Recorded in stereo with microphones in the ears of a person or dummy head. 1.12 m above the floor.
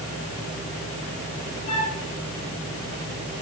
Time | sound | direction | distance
1.7 | a flute | 35° left (ahead or behind) | 3.5 m